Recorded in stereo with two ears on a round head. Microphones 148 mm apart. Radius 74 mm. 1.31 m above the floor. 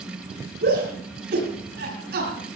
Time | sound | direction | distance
0.6 | a shout | 65° right (ahead or behind) | 9.5 m